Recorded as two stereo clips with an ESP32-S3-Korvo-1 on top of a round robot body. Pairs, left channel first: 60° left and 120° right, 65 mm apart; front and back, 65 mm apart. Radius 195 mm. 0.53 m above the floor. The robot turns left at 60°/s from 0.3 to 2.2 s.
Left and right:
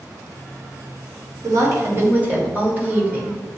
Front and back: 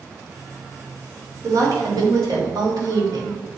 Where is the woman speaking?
140° right, 2.5 m; by 3.4 s 175° left, 2.5 m.